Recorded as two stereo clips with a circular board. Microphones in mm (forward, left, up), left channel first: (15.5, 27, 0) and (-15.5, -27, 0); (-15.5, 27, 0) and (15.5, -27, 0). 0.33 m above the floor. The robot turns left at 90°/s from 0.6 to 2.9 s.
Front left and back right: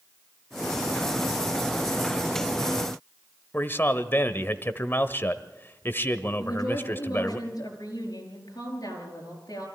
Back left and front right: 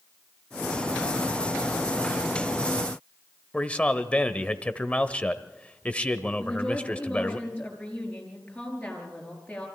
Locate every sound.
3.5 s a man speaking: 65° left, 1.0 m
6.4 s a woman speaking: 45° left, 6 m